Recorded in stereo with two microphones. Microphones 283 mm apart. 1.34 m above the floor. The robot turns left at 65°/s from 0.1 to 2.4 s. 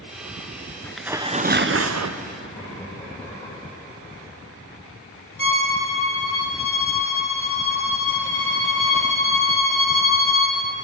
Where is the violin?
45° left (ahead or behind), 1.6 m.